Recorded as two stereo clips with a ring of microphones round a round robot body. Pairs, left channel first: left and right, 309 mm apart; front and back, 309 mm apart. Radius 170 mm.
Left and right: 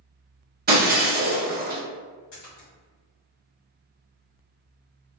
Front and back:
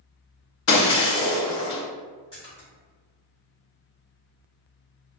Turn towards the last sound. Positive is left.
turn(degrees=70)